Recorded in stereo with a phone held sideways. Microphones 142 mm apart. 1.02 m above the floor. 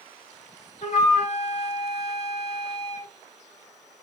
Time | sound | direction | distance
0.8 | a flute | 45° left (ahead or behind) | 2 m